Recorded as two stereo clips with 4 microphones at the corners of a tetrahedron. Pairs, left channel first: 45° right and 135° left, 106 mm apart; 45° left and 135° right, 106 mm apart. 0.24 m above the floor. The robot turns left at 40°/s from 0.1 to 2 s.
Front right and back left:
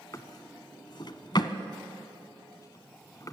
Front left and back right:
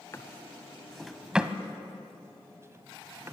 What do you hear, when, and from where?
0.1 s a drawer: 5° right, 1.0 m; by 3.3 s 80° right, 1.0 m